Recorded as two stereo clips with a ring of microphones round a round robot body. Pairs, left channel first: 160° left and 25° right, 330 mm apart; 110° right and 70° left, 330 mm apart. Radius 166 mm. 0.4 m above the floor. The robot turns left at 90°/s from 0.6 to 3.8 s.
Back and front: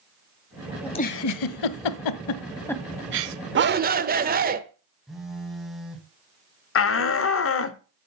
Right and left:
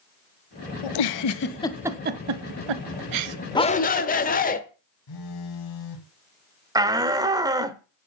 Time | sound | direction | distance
0.8 | a giggle | 115° right | 1.0 m
3.5 | a shout | 45° right | 1.3 m
5.1 | a phone buzzing | 110° right | 2 m
6.8 | a shout | 140° left | 1.2 m